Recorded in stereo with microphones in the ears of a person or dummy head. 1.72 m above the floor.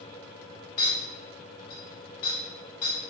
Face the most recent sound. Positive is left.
turn(degrees=20)  # may be behind; listen again after turning